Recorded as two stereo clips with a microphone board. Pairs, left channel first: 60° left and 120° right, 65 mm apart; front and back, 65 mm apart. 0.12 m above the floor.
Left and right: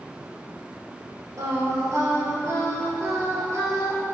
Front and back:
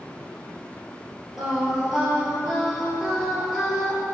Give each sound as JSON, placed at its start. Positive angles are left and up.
{"t": 1.4, "sound": "singing", "azimuth_deg": -100, "distance_m": 2.5}